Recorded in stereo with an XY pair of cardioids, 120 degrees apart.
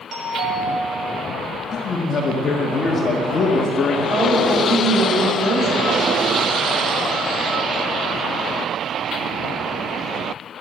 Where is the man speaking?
40° left, 1.6 m.